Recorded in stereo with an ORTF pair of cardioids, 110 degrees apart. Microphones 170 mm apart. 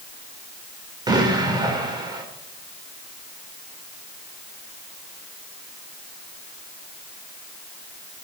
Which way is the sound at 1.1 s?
25° right.